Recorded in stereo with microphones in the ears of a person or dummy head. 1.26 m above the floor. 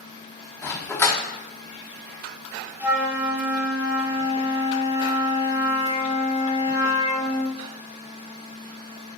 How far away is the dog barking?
About 1.0 m.